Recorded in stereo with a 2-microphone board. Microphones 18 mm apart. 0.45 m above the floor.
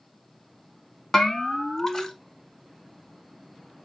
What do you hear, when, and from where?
1.1 s a bell: 20° left (ahead or behind), 0.9 m